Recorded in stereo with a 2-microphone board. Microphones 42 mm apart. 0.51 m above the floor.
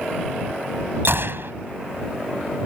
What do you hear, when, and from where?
1.1 s a gunshot: 65° right (ahead or behind)